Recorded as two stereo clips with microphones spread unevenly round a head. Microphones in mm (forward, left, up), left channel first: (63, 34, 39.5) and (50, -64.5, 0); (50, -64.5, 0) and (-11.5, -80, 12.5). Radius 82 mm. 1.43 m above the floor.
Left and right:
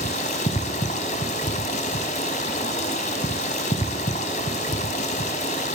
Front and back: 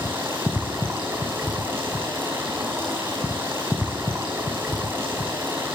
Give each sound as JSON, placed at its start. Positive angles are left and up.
{"t": 0.0, "sound": "running water", "azimuth_deg": 120, "distance_m": 5.0}